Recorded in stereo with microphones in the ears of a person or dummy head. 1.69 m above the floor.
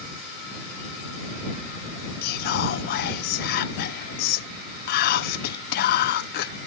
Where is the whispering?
60° left (ahead or behind).